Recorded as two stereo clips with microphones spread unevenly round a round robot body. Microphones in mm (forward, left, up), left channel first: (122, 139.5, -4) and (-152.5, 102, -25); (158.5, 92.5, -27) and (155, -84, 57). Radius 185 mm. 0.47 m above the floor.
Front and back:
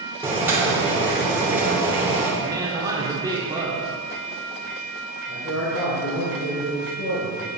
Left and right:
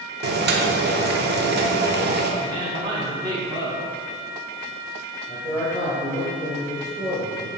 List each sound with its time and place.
0.2 s boiling: 105° right, 0.8 m
2.4 s a woman speaking: 160° left, 1.2 m
5.3 s a man speaking: 30° left, 1.8 m